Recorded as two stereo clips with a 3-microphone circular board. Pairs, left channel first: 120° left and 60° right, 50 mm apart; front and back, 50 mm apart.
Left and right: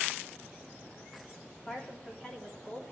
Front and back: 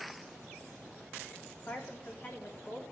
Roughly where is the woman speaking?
Ahead left.